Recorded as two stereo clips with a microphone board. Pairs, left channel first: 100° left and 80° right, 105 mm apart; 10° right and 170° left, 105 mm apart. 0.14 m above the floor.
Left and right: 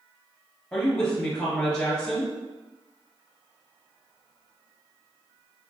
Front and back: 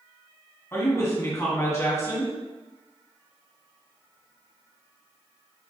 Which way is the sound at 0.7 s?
25° left.